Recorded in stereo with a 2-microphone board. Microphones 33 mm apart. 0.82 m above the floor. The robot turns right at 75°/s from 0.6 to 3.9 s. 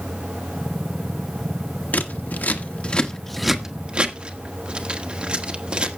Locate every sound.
1.9 s scissors: 55° left (ahead or behind), 1.1 m; by 6.0 s 30° right (ahead or behind), 1.1 m